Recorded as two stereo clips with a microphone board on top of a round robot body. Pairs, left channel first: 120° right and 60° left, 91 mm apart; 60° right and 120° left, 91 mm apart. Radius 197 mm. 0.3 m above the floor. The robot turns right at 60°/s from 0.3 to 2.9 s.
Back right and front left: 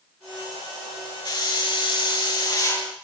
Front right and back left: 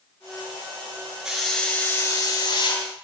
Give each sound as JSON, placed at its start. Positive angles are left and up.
{"t": 1.2, "sound": "a hiss", "azimuth_deg": -155, "distance_m": 8.5}